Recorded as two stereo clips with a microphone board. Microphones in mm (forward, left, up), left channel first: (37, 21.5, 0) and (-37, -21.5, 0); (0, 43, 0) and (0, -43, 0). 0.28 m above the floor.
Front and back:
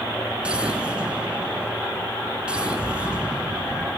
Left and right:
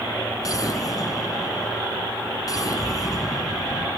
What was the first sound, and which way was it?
An explosion, 135° left.